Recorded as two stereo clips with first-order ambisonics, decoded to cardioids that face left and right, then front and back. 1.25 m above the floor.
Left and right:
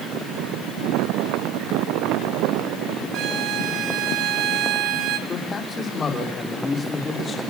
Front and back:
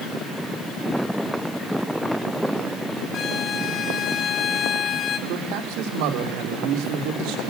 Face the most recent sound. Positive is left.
turn(degrees=165)